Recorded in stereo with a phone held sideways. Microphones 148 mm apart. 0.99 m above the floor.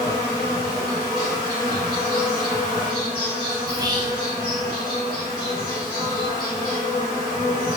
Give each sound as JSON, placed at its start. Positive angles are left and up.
{"t": 0.0, "sound": "an insect", "side_deg": -30, "distance_m": 1.5}
{"t": 3.7, "sound": "whispering", "side_deg": -25, "distance_m": 0.8}